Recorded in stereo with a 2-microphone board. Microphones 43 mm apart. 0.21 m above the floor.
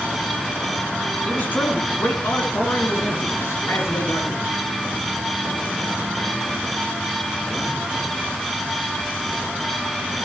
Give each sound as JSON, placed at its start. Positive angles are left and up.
{"t": 1.3, "sound": "a man speaking", "side_deg": 40, "distance_m": 2.5}